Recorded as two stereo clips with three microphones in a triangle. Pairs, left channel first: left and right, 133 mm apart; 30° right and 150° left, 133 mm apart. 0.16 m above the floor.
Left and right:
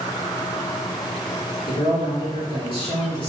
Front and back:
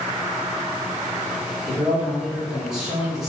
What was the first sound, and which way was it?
A man speaking, 65° left.